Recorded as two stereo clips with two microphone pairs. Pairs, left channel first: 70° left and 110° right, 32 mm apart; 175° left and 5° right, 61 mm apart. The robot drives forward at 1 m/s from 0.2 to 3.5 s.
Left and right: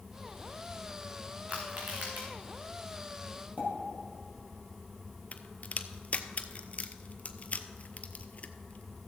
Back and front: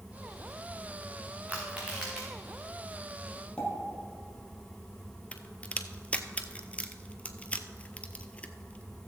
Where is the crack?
105° left, 0.6 m.